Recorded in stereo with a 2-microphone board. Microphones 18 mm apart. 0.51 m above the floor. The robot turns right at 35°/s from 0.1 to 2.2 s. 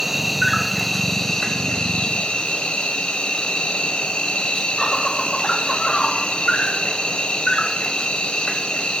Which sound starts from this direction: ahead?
An insect, at 0.0 s.